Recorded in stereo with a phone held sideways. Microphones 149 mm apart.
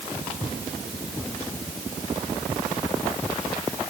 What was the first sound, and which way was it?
Only background noise.